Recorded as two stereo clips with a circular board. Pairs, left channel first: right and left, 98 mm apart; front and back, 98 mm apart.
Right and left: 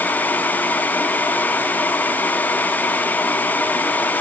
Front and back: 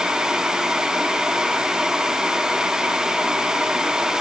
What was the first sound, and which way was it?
Only background noise.